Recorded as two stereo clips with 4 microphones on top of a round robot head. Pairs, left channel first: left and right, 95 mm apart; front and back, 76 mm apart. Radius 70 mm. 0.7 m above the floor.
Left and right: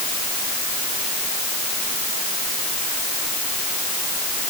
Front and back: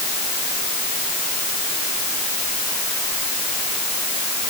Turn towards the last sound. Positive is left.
No sound to turn to.